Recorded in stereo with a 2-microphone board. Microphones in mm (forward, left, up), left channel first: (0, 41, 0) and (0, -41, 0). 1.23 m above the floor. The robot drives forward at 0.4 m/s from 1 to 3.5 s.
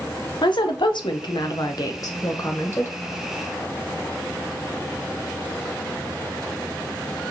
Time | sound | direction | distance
0.4 | a woman speaking | 70° left (ahead or behind) | 0.6 m